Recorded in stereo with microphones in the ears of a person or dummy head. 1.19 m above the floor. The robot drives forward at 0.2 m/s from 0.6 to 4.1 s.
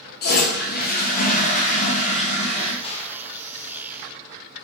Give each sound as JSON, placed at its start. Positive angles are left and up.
{"t": 0.2, "sound": "a toilet flushing", "side_deg": 50, "distance_m": 0.6}
{"t": 2.8, "sound": "a gunshot", "side_deg": 35, "distance_m": 0.9}